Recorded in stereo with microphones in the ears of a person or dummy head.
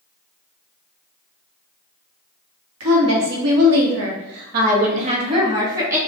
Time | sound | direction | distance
2.8 | a woman speaking | 75° right (ahead or behind) | 1.4 m